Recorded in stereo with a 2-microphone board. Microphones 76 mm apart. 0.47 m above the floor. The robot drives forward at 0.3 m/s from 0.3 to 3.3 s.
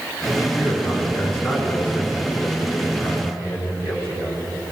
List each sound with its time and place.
0.6 s a man speaking: 15° left (ahead or behind), 5.5 m